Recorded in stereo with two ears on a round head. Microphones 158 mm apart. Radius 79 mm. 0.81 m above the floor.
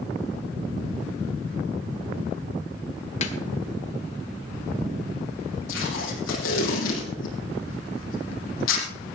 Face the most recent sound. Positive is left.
turn(degrees=85)